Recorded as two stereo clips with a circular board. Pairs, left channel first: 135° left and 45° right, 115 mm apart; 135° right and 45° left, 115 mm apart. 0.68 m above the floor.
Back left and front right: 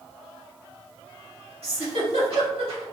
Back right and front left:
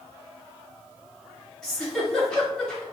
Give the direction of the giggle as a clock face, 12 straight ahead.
2 o'clock.